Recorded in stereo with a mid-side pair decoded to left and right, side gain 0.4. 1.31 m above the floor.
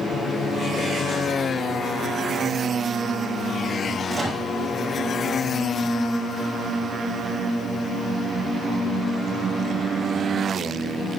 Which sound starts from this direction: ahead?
A microwave, at 4.1 s.